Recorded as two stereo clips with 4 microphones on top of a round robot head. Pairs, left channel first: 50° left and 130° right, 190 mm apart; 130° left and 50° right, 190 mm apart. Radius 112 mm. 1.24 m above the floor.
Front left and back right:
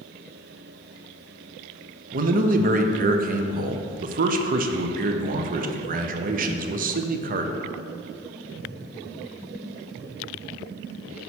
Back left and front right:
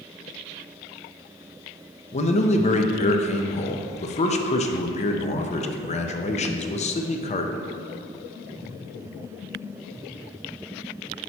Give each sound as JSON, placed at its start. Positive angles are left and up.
{"t": 2.1, "sound": "a man speaking", "azimuth_deg": -175, "distance_m": 0.6}